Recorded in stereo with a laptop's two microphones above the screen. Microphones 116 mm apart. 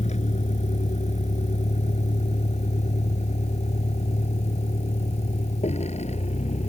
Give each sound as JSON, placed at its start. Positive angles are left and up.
{"t": 0.0, "sound": "a vehicle", "side_deg": 80}